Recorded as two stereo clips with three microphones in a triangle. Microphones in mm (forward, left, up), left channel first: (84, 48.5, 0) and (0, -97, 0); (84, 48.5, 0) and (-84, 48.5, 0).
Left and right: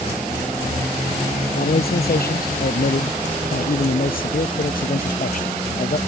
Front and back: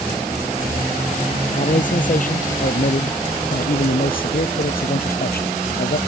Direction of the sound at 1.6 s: 40° left.